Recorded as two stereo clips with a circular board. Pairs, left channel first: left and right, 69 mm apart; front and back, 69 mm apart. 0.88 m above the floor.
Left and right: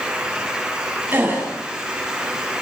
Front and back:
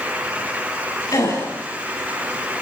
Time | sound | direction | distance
1.1 | a gasp | 35° right | 9 m